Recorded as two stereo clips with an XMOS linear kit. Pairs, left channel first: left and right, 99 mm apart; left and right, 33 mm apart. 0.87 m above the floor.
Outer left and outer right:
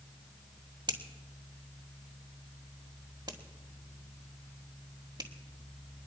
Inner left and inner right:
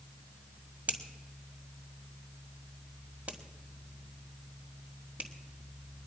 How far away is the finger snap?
About 1.9 m.